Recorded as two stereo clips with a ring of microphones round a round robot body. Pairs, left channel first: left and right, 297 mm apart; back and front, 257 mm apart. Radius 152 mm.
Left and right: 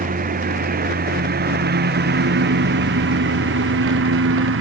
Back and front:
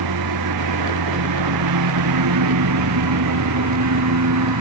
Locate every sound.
0.0 s a lawn mower: 25° right; by 4.6 s 40° right